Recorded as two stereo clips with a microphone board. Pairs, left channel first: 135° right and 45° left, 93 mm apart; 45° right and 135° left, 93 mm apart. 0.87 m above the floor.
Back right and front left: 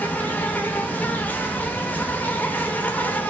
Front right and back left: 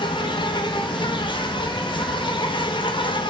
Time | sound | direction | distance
0.0 | an insect | 65° right | 0.7 m